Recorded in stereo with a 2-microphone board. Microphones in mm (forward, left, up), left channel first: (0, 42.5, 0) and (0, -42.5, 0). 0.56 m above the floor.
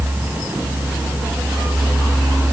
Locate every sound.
Only background noise.